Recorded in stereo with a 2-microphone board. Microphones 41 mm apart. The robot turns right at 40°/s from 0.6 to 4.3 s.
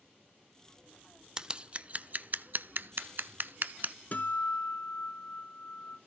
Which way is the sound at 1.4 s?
20° right (ahead or behind).